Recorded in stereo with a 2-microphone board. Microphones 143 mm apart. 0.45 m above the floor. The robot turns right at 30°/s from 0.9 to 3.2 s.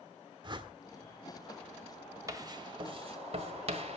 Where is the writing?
25° right (ahead or behind), 1.6 m; by 4.0 s 50° right (ahead or behind), 1.6 m.